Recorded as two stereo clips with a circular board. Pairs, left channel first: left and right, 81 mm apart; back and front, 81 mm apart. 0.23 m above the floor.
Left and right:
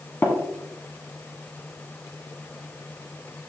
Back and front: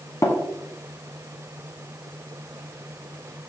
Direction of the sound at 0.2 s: 145° left.